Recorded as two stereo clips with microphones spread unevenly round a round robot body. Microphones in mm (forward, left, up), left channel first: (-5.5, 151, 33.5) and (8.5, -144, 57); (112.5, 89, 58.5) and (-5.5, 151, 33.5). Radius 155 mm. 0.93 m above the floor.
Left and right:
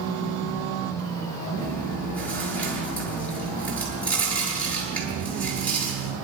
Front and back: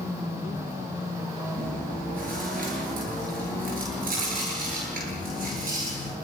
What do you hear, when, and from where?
1.6 s chewing: straight behind, 8.5 m